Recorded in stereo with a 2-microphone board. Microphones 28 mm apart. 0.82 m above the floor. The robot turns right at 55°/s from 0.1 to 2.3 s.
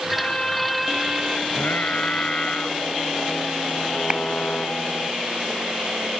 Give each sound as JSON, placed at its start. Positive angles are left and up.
{"t": 0.1, "sound": "a violin", "azimuth_deg": 140}
{"t": 1.5, "sound": "singing", "azimuth_deg": 90}
{"t": 4.1, "sound": "a clap", "side_deg": -35}